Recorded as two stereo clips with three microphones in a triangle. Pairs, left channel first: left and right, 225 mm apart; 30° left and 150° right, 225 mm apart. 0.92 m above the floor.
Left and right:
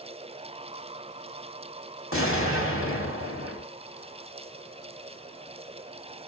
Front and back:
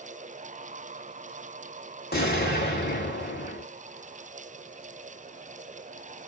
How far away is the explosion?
About 2.0 m.